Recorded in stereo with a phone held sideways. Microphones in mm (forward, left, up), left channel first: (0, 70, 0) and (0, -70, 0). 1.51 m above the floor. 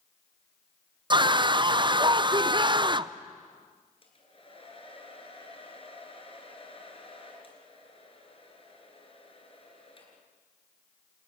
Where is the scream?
35° right (ahead or behind), 0.6 m.